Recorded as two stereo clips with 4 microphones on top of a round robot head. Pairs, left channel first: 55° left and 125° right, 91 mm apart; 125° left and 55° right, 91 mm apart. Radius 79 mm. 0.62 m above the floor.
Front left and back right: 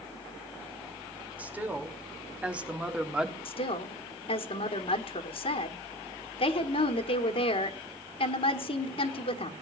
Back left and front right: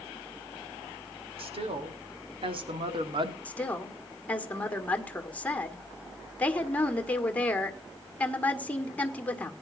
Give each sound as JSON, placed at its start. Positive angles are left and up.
{"t": 1.4, "sound": "a woman speaking", "azimuth_deg": -50, "distance_m": 2.5}
{"t": 3.5, "sound": "a woman speaking", "azimuth_deg": 50, "distance_m": 1.8}